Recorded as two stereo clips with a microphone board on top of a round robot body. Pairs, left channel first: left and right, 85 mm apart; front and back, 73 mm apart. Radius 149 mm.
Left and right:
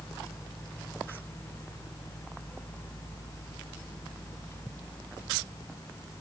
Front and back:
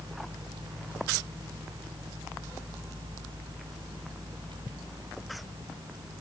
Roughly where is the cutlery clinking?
I don't hear cutlery clinking.